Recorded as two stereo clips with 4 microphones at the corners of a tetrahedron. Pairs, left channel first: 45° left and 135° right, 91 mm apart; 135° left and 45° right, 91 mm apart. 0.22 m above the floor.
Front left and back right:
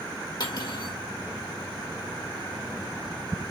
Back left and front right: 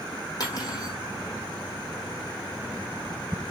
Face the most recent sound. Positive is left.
turn(degrees=90)